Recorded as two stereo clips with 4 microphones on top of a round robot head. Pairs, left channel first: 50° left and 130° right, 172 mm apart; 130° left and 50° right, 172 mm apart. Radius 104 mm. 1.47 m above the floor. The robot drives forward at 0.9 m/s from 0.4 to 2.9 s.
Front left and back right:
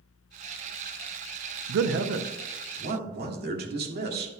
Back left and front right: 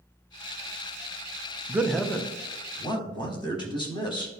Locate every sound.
1.7 s a man speaking: 125° right, 0.5 m; by 4.3 s 165° right, 1.4 m